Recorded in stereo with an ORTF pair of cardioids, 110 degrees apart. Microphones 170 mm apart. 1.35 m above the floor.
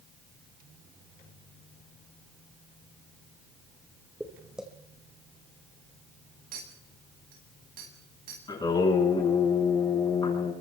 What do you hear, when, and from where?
4.2 s footsteps: 5° right, 4.5 m
6.5 s a clink: 60° right, 8.5 m
8.5 s singing: 25° left, 8.5 m